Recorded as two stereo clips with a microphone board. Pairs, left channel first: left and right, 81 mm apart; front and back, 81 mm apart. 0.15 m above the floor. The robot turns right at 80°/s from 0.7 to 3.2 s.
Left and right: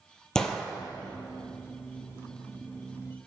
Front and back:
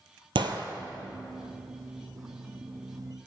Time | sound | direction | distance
0.3 | a gunshot | 175° left | 0.6 m